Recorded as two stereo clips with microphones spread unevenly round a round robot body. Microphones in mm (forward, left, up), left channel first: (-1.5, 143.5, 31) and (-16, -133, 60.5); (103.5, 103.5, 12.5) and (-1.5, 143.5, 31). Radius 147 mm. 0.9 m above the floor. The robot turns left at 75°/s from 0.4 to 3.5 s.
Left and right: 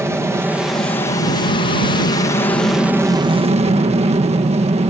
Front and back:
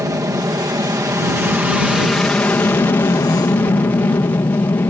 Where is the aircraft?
175° right; by 4.9 s 45° right.